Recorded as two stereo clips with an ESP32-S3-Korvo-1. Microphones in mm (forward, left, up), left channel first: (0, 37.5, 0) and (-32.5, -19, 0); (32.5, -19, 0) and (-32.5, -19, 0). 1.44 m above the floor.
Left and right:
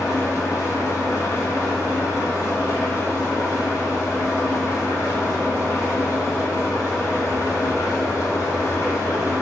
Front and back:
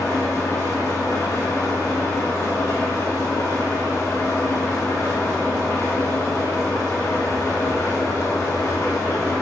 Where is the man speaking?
I don't hear a man speaking.